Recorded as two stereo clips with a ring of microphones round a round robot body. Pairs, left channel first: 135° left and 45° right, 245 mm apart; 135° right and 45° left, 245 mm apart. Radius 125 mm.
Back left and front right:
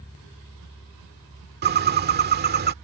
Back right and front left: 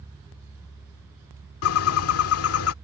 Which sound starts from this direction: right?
A bird, at 1.6 s.